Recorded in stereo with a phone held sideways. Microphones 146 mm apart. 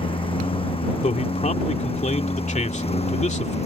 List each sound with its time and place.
0.0 s a lawn mower: 35° left (ahead or behind); by 3.7 s 45° left (ahead or behind)
1.0 s a man speaking: 55° left (ahead or behind)